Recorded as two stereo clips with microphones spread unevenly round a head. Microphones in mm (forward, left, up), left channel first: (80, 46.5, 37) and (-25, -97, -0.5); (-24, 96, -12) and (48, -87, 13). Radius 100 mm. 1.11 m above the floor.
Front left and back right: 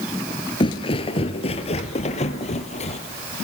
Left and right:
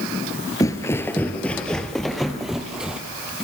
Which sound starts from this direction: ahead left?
Footsteps, at 0.6 s.